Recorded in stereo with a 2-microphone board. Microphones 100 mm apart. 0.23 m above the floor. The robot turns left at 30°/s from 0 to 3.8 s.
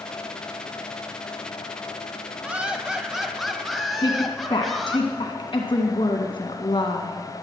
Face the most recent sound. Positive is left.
turn(degrees=55)  # may be behind; listen again after turning